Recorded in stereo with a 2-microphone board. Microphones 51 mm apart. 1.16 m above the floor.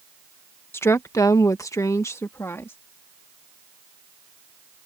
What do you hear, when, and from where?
0.7 s a woman speaking: 45° left (ahead or behind); by 2.8 s 50° left (ahead or behind)